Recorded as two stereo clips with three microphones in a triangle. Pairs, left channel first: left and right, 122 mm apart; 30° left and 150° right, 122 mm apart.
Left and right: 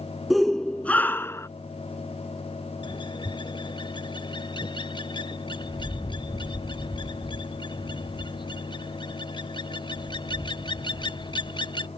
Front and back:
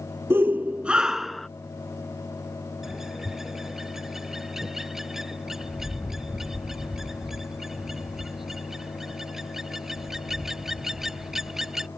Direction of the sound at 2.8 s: 125° left.